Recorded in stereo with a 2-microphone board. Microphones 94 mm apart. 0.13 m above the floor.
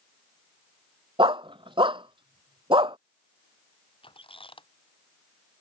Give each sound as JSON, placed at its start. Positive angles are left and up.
{"t": 1.2, "sound": "a dog barking", "side_deg": -65}
{"t": 4.0, "sound": "a squeak", "side_deg": 70}